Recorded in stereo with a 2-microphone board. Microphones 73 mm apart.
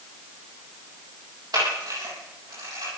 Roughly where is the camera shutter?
Right.